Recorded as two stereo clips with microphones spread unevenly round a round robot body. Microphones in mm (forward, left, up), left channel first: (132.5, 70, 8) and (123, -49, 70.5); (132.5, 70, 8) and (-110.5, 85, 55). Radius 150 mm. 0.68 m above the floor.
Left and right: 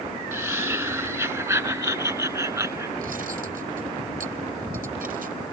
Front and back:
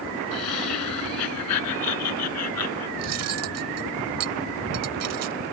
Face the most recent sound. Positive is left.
turn(degrees=-145)